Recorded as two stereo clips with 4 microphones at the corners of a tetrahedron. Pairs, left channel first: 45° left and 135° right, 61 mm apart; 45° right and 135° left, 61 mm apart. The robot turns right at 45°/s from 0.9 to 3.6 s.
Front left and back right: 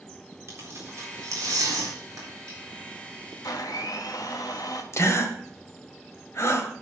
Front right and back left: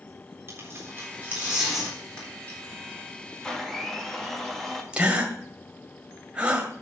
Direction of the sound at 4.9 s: 65° left.